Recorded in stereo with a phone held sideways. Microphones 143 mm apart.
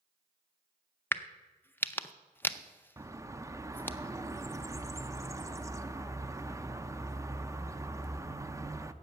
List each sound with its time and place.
1.1 s a crack: 15° left (ahead or behind), 0.5 m
3.0 s a bird: 20° right (ahead or behind), 0.5 m